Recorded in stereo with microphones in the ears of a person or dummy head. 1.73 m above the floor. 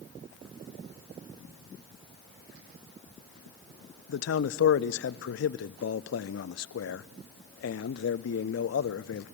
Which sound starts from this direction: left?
A man speaking, at 4.1 s.